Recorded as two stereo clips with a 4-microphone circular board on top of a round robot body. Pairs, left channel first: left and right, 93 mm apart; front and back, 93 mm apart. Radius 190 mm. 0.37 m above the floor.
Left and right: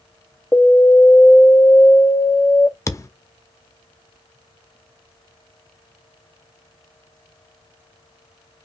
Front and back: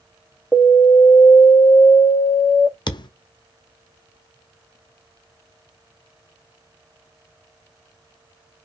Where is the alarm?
70° left, 1.3 m.